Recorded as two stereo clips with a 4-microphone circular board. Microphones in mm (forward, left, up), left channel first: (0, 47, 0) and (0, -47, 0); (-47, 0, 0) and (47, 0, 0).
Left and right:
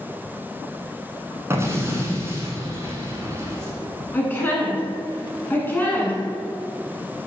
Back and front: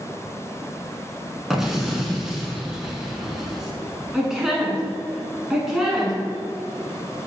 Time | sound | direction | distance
1.5 | an explosion | 80° right | 1.2 m
4.1 | a woman speaking | 75° left | 1.1 m